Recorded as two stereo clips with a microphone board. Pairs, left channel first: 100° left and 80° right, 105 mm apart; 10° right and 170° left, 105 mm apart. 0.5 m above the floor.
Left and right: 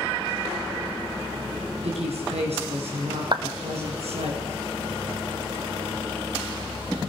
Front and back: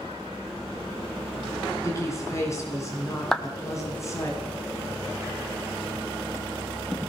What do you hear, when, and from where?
1.8 s a woman speaking: 70° right, 6 m
3.3 s a clap: 95° right, 1.4 m